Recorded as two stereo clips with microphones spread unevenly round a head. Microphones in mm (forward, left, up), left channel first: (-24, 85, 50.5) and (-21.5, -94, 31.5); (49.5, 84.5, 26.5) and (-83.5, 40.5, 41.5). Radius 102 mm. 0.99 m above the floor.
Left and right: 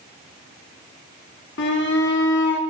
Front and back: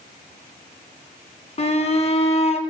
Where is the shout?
60° left, 2.5 m.